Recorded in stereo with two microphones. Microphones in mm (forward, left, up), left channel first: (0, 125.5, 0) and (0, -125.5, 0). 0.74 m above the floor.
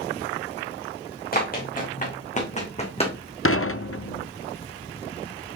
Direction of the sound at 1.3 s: 35° left (ahead or behind).